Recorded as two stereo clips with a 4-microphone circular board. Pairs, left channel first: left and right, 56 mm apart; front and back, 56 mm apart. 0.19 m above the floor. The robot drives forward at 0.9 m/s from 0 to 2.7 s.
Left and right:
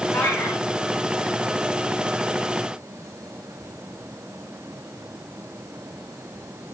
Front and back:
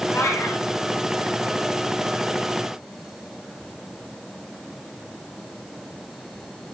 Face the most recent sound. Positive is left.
turn(degrees=45)